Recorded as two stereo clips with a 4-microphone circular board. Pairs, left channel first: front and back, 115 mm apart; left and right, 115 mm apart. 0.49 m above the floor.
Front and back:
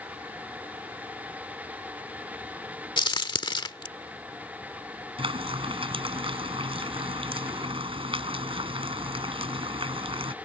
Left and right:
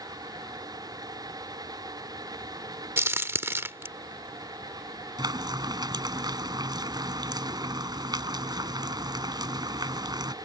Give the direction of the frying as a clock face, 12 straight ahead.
5 o'clock.